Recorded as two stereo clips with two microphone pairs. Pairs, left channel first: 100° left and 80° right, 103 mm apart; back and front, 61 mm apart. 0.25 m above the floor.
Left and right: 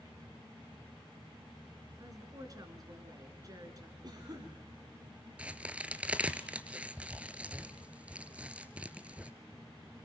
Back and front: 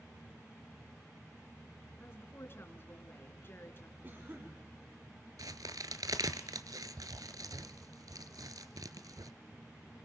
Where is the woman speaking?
130° right, 3 m.